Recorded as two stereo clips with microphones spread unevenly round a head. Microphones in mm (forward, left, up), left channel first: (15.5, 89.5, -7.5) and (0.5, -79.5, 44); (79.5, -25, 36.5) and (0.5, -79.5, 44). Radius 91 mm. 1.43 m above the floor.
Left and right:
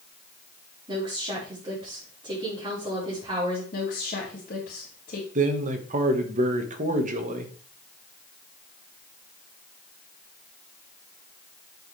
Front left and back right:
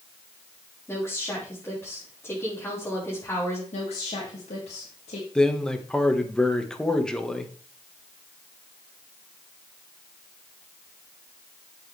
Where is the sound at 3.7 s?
40° left, 2.5 m.